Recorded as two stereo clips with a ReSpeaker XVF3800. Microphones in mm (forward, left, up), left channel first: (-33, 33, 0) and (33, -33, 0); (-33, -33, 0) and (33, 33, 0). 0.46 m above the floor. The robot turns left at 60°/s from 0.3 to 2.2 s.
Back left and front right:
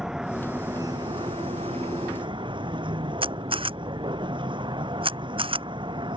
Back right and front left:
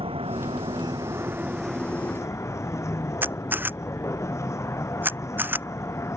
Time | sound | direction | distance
0.0 | a vehicle | 40° left | ?
3.2 | a camera shutter | 25° right | ?